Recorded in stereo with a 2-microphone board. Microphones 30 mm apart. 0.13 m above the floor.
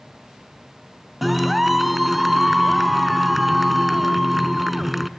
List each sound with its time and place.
1.2 s a clap: 5° right (ahead or behind), 0.9 m